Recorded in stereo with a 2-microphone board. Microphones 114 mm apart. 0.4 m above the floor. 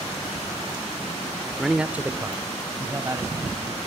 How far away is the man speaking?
About 0.7 m.